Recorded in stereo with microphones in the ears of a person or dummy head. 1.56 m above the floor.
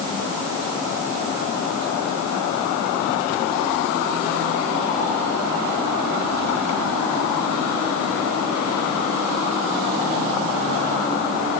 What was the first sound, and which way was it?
Only background noise.